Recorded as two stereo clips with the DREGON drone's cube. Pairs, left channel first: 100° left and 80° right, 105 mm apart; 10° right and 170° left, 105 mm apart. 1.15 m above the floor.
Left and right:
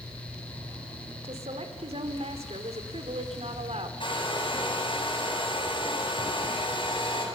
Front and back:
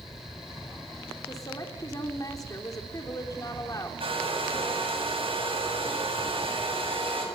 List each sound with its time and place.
1.2 s a woman speaking: 65° right, 3 m
4.0 s a hair dryer: 140° left, 8.5 m